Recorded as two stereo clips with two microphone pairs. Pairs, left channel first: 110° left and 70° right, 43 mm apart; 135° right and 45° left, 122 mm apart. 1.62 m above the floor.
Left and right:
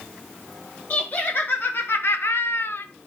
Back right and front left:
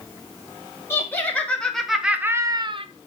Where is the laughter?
155° left, 1.5 m; by 2.9 s 75° left, 0.7 m.